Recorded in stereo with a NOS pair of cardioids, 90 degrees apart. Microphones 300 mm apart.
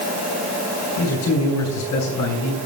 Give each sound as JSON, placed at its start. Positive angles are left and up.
{"t": 1.0, "sound": "a man speaking", "azimuth_deg": 65, "distance_m": 4.0}